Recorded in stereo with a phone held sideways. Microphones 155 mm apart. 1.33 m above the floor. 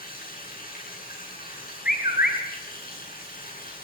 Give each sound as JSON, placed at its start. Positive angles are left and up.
{"t": 0.0, "sound": "running water", "side_deg": 75, "distance_m": 9.5}
{"t": 1.9, "sound": "a bird", "side_deg": 80, "distance_m": 6.0}